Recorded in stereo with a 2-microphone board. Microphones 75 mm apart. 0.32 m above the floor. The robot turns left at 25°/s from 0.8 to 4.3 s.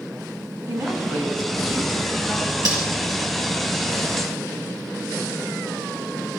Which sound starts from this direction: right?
Cutlery clinking, at 2.6 s.